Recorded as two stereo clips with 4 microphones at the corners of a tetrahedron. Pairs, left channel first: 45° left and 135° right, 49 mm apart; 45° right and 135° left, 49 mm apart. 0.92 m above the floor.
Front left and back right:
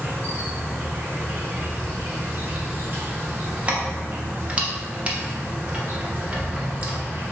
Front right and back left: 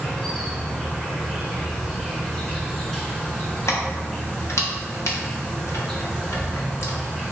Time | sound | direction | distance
0.0 | an insect | 130° right | 1.5 m
3.7 | keys jangling | 70° right | 0.7 m